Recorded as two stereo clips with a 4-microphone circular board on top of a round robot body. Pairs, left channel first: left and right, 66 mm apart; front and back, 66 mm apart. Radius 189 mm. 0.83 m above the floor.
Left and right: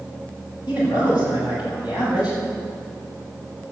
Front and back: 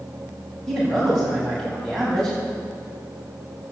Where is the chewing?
I don't hear chewing.